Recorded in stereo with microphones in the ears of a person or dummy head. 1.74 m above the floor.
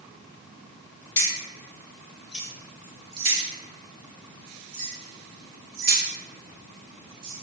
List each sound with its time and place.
1.2 s keys jangling: 25° left (ahead or behind), 1.4 m; by 7.4 s 75° right (ahead or behind), 2.5 m